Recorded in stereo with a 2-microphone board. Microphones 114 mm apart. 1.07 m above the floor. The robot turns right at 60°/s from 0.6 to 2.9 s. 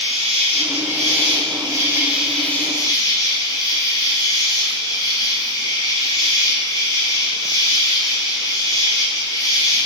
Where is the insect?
100° right, 2.5 m; by 9.9 s 40° left, 2.5 m.